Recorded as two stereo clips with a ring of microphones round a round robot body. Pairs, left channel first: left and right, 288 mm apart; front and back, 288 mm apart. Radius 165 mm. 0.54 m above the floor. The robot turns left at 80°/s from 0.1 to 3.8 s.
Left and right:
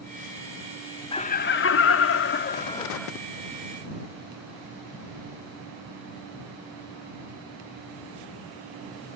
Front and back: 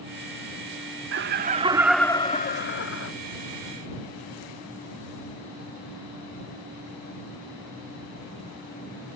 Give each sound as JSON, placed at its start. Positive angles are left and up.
{"t": 1.1, "sound": "laughter", "azimuth_deg": 155}